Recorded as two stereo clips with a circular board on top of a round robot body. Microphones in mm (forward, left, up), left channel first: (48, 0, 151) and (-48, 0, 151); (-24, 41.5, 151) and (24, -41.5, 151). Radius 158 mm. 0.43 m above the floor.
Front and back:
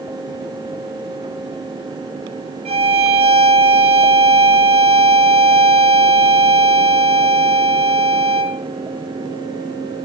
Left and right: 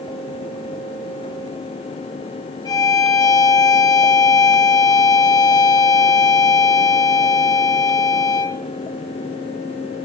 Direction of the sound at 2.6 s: 170° left.